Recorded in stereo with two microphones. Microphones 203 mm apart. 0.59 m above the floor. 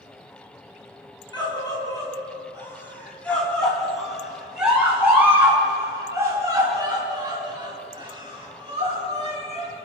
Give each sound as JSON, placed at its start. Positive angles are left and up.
{"t": 1.3, "sound": "a scream", "side_deg": 20, "distance_m": 6.0}